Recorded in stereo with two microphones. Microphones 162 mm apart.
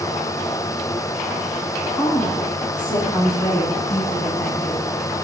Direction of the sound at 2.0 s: 30° left (ahead or behind).